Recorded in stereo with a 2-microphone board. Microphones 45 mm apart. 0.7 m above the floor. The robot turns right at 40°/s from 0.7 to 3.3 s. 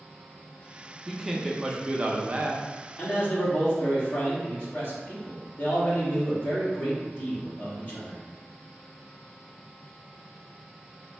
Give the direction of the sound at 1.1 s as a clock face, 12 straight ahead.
6 o'clock.